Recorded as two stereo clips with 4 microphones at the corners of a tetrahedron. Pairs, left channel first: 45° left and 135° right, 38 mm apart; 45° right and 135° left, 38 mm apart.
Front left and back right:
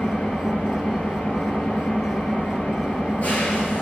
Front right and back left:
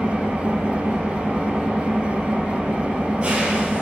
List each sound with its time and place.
0.0 s an engine running: 80° left, 1.9 m